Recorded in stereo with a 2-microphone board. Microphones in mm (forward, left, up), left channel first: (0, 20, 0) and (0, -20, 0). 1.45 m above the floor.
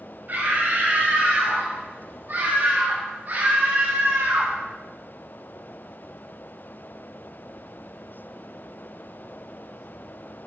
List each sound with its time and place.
0.3 s a scream: 50° right (ahead or behind), 5.5 m; by 4.6 s 70° right (ahead or behind), 1.2 m